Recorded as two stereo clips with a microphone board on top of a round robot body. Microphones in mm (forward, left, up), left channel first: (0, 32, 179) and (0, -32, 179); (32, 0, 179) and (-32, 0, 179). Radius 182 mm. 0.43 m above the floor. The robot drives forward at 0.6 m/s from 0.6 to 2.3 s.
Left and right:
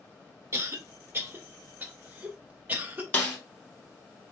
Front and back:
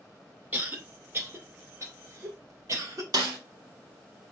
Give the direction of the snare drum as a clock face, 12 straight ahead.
7 o'clock.